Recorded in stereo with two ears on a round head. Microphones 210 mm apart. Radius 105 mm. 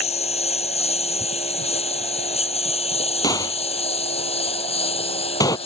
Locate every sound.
0.0 s a lawn mower: 25° left (ahead or behind)
3.2 s a gunshot: 15° left (ahead or behind)